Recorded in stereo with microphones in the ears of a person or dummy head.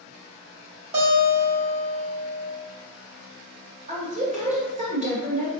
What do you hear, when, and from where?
0.9 s a guitar: 35° right (ahead or behind), 1.0 m
3.9 s a woman speaking: 40° right (ahead or behind), 1.2 m